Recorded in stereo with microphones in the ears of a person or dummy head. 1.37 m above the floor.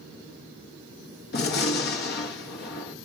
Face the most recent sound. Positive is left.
turn(degrees=50)  # may be behind; listen again after turning